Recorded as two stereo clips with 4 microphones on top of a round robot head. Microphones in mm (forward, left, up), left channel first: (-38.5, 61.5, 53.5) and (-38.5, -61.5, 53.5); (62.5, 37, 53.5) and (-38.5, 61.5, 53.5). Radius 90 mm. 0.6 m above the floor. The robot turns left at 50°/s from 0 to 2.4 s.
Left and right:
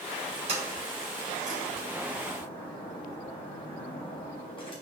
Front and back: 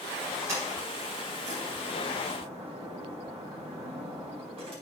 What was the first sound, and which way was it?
A sliding door, 125° right.